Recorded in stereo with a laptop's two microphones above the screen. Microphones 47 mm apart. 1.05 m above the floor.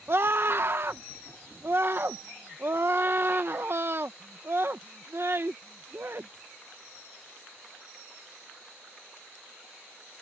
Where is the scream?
50° right (ahead or behind).